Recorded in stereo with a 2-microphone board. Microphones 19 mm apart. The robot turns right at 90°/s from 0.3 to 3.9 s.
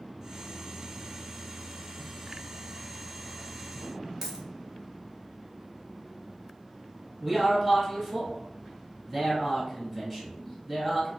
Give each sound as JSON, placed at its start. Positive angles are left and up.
{"t": 4.2, "sound": "a dropped coin", "side_deg": -15, "distance_m": 0.7}
{"t": 7.2, "sound": "a man speaking", "side_deg": 10, "distance_m": 1.5}